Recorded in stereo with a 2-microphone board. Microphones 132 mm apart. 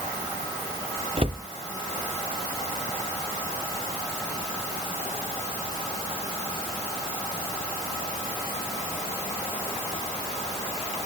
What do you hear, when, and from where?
1.2 s a cupboard door: 45° right (ahead or behind), 1.0 m